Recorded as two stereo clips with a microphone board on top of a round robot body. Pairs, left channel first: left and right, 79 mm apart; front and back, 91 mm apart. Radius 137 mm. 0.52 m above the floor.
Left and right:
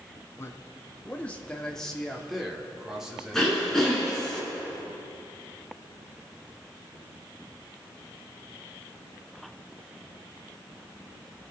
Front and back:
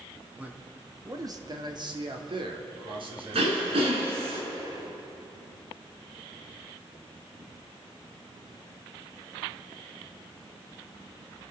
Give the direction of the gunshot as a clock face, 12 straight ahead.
I don't hear a gunshot.